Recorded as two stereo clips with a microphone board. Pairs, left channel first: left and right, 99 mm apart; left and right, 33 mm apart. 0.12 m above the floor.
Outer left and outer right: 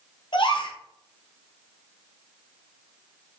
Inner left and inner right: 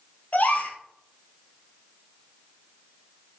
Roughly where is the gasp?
Left.